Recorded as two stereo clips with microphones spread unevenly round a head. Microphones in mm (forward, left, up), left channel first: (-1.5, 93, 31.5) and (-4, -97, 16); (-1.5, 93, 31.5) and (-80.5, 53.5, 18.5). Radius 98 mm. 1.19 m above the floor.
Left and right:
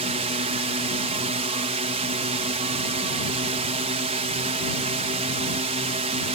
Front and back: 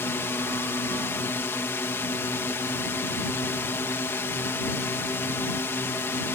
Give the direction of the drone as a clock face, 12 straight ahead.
1 o'clock.